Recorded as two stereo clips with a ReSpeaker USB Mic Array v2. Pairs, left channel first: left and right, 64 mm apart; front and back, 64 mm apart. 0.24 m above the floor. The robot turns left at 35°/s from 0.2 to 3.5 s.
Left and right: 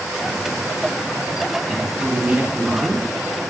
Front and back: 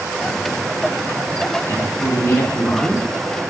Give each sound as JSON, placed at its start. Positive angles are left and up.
{"t": 1.7, "sound": "a woman speaking", "azimuth_deg": -5, "distance_m": 1.9}